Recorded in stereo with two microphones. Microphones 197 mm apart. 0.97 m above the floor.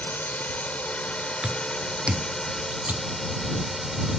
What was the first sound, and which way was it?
A drone, 10° left (ahead or behind).